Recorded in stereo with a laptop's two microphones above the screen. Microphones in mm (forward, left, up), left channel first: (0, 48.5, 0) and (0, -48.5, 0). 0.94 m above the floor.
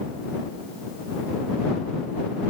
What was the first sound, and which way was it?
Only background noise.